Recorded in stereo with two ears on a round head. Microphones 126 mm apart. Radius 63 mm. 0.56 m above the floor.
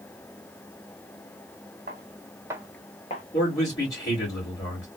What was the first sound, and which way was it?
Footsteps, 65° right (ahead or behind).